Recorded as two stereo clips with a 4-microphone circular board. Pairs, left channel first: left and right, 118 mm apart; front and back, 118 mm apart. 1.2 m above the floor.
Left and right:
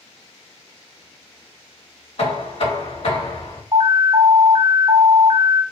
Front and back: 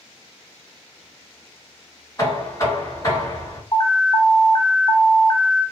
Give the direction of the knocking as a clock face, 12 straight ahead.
10 o'clock.